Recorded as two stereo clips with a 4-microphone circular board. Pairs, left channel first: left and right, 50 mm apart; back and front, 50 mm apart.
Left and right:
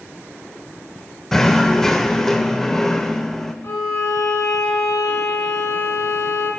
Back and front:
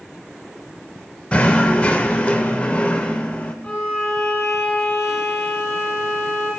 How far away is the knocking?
About 0.5 m.